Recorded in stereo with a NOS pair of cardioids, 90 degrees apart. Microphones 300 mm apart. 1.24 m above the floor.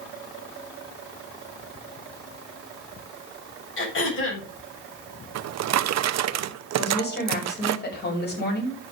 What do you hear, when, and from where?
3.8 s throat clearing: 40° left, 6.5 m
5.3 s a drawer: 65° right, 0.9 m
6.8 s a woman speaking: 35° left, 7 m